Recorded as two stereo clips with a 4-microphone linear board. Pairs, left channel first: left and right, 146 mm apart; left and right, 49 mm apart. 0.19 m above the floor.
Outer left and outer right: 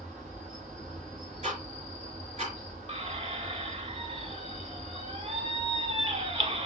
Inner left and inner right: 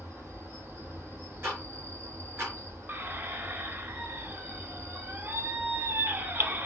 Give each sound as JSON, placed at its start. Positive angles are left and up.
{"t": 0.0, "sound": "an insect", "side_deg": -50, "distance_m": 2.5}
{"t": 1.4, "sound": "ticking", "side_deg": -45, "distance_m": 3.5}
{"t": 2.9, "sound": "a squeak", "side_deg": -45, "distance_m": 0.8}